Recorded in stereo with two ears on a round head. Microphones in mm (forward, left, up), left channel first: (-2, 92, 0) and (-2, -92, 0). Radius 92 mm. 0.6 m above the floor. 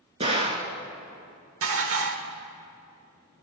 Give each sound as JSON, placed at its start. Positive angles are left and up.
{"t": 0.2, "sound": "a gunshot", "side_deg": -30, "distance_m": 2.0}
{"t": 1.6, "sound": "dishes clattering", "side_deg": -70, "distance_m": 1.4}